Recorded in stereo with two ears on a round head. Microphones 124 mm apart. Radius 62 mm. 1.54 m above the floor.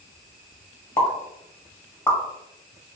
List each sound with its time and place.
1.0 s a pop: 15° left (ahead or behind), 0.9 m